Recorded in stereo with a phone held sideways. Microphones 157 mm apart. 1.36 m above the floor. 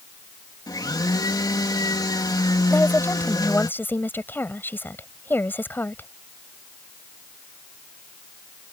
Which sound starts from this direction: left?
A blender, at 0.7 s.